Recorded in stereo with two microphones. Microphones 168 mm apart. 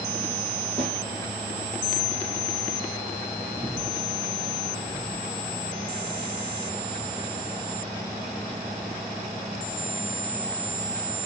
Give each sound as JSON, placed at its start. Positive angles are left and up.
{"t": 0.8, "sound": "a snare drum", "side_deg": -35, "distance_m": 6.5}
{"t": 3.6, "sound": "breathing", "side_deg": 0, "distance_m": 3.5}